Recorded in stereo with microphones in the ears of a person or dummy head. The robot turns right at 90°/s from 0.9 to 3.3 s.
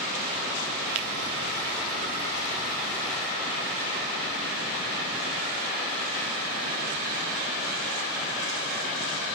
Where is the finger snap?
45° right (ahead or behind), 1.2 m; by 1.1 s 35° right (ahead or behind), 1.2 m.